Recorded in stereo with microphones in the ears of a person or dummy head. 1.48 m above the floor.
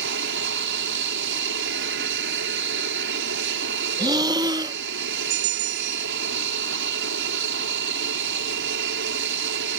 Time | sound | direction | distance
0.0 | an aircraft | 55° right (ahead or behind) | ?
4.0 | breathing | 20° right (ahead or behind) | ?
5.3 | a bell | 55° right (ahead or behind) | ?